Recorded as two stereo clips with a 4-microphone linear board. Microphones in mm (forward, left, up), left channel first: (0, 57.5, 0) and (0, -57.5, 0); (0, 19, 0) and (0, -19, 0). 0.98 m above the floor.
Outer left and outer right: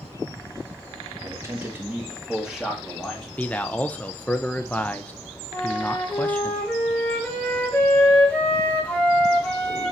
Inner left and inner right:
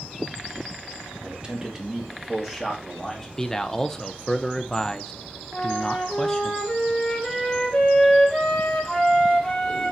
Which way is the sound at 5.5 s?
10° left (ahead or behind).